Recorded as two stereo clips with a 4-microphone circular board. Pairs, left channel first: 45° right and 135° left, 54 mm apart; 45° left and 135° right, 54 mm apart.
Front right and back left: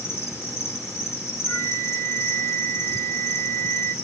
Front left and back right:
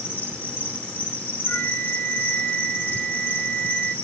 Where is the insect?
5° right, 7 m.